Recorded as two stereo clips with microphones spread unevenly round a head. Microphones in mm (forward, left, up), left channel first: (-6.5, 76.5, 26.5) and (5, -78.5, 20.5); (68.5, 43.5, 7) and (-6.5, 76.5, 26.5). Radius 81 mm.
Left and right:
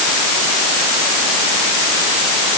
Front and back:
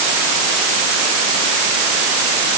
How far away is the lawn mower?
No lawn mower in this recording.